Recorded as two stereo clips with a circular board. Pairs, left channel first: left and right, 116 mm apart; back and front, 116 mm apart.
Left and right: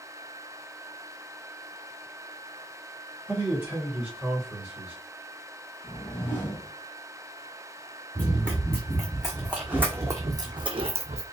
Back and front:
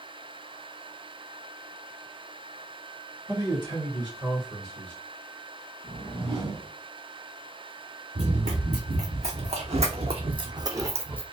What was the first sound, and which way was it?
A man speaking, 20° right.